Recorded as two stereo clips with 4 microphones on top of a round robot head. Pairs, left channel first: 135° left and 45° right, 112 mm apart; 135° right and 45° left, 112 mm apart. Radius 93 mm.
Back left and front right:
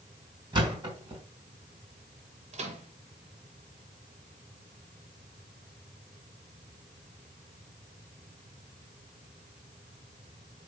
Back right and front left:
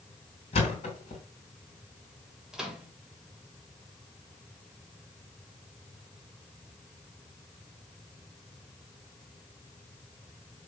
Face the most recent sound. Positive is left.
turn(degrees=-35)